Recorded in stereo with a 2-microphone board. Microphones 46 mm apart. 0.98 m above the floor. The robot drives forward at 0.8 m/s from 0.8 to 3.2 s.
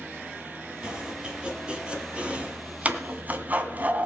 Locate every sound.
0.8 s chopping: 20° right (ahead or behind), 3.5 m; by 4.0 s 35° right (ahead or behind), 2 m